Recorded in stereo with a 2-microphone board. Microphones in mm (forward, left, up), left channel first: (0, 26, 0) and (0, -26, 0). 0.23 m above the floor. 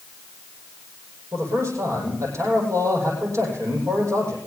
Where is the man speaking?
65° right (ahead or behind), 9 m.